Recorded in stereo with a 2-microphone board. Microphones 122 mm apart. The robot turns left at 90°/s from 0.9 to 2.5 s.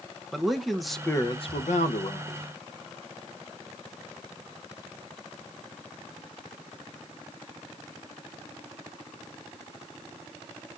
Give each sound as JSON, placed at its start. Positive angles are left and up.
{"t": 0.3, "sound": "a man speaking", "azimuth_deg": 180, "distance_m": 0.6}